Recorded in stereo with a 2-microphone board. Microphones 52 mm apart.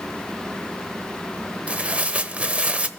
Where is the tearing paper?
25° right (ahead or behind), 0.8 m.